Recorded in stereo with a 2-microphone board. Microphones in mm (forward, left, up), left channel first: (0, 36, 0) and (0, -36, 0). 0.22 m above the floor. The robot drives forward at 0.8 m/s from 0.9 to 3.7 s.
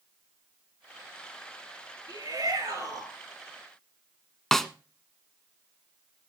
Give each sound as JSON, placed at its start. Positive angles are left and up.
{"t": 2.1, "sound": "a shout", "side_deg": -65, "distance_m": 4.0}
{"t": 4.5, "sound": "a snare drum", "side_deg": 5, "distance_m": 1.0}